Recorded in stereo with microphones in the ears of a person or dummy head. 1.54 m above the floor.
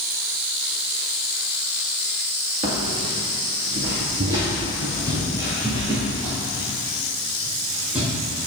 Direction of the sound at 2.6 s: 35° right (ahead or behind).